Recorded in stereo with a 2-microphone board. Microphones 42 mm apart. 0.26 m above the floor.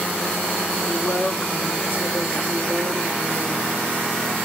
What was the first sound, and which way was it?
A woman speaking, 45° left (ahead or behind).